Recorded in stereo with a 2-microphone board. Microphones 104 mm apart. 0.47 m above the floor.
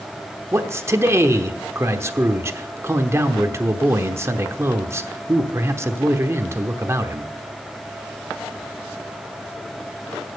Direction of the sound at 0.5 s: 25° right (ahead or behind).